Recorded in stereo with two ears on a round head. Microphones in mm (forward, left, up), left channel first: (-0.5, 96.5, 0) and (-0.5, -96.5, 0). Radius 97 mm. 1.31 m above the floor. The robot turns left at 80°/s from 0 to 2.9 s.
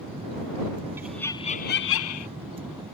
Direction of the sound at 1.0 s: 170° right.